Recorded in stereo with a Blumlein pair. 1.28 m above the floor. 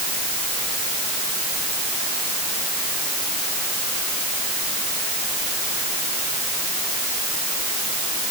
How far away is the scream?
No scream in this recording.